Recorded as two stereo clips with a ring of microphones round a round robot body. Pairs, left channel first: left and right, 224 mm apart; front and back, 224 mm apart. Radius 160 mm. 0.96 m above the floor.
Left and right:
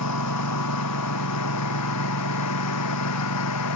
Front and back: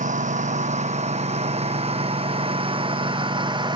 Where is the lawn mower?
125° left; by 3.8 s 110° left.